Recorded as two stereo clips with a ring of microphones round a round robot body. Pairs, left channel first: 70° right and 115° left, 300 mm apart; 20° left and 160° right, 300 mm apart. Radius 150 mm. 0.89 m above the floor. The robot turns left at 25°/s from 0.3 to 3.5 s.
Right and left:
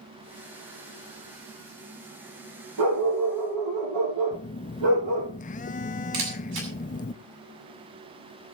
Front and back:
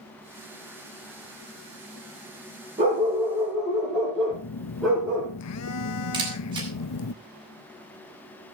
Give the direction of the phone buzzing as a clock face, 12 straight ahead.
12 o'clock.